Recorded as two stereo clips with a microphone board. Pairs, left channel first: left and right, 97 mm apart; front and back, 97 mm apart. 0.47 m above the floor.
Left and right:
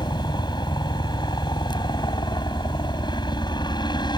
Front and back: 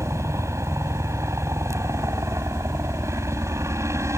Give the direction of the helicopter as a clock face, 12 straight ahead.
8 o'clock.